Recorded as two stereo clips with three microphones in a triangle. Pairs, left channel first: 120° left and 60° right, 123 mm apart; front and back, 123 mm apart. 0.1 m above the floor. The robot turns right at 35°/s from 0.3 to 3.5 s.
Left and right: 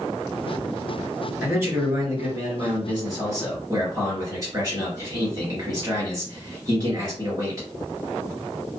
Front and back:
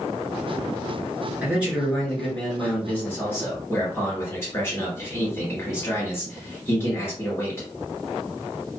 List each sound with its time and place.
1.4 s a man speaking: 115° right, 1.7 m; by 7.7 s 45° right, 1.7 m